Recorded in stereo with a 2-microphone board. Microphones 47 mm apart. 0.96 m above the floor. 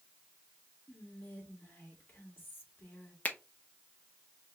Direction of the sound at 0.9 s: 45° left (ahead or behind).